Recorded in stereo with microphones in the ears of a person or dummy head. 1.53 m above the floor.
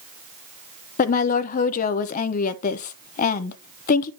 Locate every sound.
1.0 s a woman speaking: 40° left (ahead or behind), 0.8 m